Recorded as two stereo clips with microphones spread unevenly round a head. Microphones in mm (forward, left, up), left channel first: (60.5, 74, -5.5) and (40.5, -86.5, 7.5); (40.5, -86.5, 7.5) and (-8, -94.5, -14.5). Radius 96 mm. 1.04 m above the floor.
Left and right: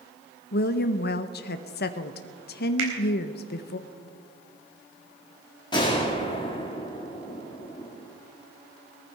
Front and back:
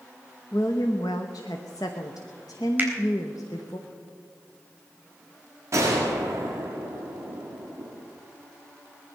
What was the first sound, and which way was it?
A woman speaking, 70° left.